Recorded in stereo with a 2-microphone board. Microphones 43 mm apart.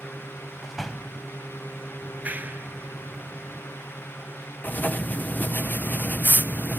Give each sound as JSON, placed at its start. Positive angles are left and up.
{"t": 0.6, "sound": "a door slam", "side_deg": 0}
{"t": 2.0, "sound": "a clap", "side_deg": -40}
{"t": 4.6, "sound": "writing", "side_deg": 40}